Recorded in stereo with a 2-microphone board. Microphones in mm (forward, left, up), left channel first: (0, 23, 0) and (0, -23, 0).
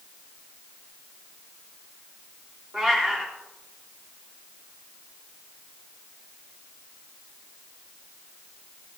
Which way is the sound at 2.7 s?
20° right (ahead or behind).